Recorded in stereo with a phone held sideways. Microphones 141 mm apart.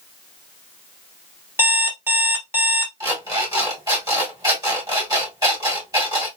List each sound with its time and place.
1.6 s an alarm clock: 15° right (ahead or behind), 1.5 m
3.0 s an alarm clock: 25° right (ahead or behind), 1.9 m